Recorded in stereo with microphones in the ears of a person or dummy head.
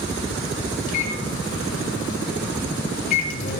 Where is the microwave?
45° left (ahead or behind), 1.5 m.